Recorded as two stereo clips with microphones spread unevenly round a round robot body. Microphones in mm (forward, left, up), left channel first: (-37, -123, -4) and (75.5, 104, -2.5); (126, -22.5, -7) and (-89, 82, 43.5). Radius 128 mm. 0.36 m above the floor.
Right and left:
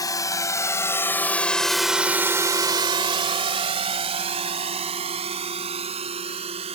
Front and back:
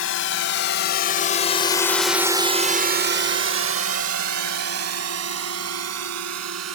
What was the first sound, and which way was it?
A drone, 40° right.